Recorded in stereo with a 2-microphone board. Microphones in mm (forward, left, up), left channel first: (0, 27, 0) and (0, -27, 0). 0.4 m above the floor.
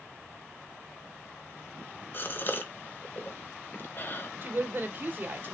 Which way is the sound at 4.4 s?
35° right (ahead or behind).